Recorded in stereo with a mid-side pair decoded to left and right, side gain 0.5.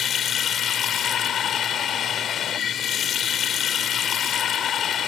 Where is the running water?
55° left.